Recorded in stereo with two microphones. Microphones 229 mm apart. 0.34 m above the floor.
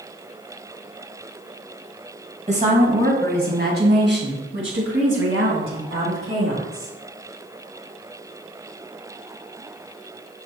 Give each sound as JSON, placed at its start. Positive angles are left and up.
{"t": 2.5, "sound": "a woman speaking", "side_deg": -30, "distance_m": 2.0}